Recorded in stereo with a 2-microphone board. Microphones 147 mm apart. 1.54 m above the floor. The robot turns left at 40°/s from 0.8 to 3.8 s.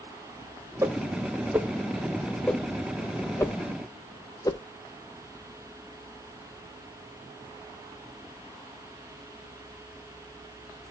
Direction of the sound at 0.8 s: 20° right (ahead or behind).